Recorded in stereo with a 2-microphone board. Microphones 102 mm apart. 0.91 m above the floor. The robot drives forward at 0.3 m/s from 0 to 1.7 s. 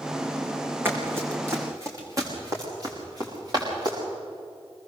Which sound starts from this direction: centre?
Running footsteps, at 0.8 s.